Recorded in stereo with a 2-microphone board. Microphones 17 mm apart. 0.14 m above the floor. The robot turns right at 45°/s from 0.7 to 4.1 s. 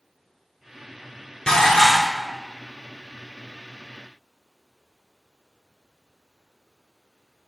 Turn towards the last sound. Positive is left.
turn(degrees=-140)